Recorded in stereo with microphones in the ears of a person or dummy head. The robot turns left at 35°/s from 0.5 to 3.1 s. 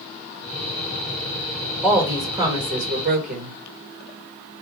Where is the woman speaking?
Straight ahead, 1.4 m; by 3.6 s 45° right, 1.4 m.